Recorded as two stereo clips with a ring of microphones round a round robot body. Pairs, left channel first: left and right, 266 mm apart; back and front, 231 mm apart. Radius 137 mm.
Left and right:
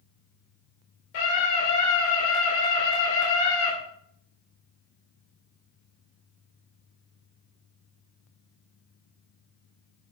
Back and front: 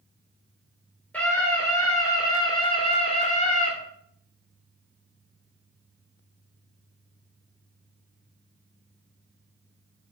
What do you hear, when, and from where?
1.1 s a scream: 95° left, 2.5 m; by 3.7 s 125° left, 2 m